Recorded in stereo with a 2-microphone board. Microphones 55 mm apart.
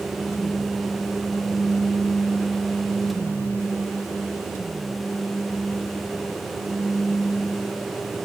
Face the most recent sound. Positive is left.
No sound to turn to.